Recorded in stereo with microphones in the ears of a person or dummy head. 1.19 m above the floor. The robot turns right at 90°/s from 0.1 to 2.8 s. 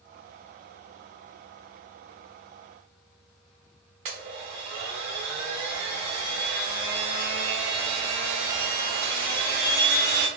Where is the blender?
30° right (ahead or behind), 0.9 m.